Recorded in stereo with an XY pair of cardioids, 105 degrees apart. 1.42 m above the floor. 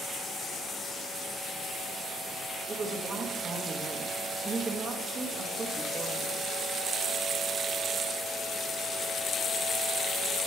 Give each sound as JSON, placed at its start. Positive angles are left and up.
{"t": 2.7, "sound": "a woman speaking", "azimuth_deg": -40, "distance_m": 2.0}